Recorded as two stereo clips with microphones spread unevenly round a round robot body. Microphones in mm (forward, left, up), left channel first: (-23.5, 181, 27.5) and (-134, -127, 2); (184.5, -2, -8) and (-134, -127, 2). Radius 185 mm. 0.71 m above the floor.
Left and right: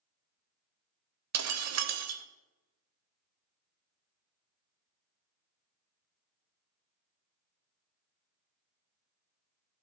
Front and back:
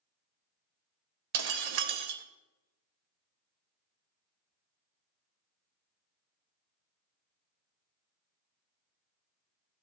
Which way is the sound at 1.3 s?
155° right.